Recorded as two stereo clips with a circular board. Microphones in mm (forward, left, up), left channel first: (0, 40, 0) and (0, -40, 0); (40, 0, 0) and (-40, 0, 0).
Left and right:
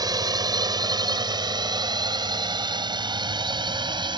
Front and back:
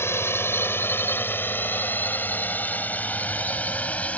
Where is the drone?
60° right; by 4.2 s 75° right.